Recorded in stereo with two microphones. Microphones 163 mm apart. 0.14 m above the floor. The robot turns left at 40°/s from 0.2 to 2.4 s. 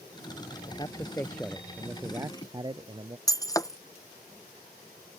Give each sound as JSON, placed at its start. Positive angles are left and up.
{"t": 0.7, "sound": "a man speaking", "azimuth_deg": 35}
{"t": 3.3, "sound": "breaking glass", "side_deg": 20}